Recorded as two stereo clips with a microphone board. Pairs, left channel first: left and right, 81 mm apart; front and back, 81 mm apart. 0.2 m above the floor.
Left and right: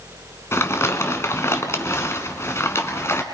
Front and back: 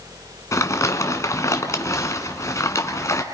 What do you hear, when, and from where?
0.5 s crumpling: 40° left, 1.8 m